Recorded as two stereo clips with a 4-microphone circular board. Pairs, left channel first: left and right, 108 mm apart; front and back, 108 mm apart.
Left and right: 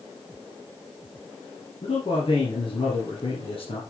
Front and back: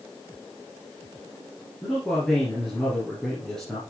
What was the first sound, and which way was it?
A man speaking, 85° left.